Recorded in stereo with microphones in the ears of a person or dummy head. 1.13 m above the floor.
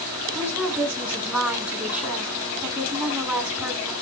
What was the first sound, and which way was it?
A woman speaking, 5° right (ahead or behind).